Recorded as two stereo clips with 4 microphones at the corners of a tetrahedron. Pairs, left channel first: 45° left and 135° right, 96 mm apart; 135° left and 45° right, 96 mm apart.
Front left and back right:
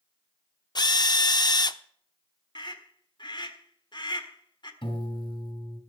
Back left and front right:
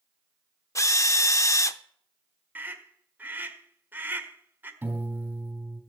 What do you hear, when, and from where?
0.8 s a drill: 85° left, 0.5 m
2.5 s a scream: 20° left, 1.5 m
4.8 s a piano: 25° left, 2.5 m